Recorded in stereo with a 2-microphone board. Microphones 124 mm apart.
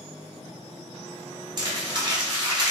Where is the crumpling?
40° right (ahead or behind), 1.1 m.